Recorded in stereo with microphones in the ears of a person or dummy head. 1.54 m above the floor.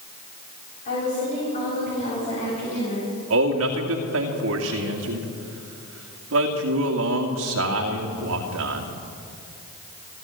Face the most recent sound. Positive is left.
turn(degrees=-70)  # may be behind; listen again after turning